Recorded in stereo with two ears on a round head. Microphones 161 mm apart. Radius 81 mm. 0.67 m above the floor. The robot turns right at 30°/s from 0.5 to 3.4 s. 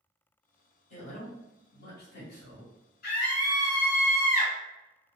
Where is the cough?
No cough in this recording.